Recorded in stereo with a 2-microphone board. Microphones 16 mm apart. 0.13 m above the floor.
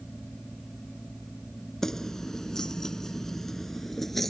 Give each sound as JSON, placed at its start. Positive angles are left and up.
{"t": 1.8, "sound": "keys jangling", "side_deg": 25}